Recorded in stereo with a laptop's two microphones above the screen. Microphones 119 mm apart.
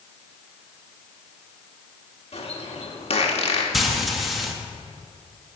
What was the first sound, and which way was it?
A bird, 55° left (ahead or behind).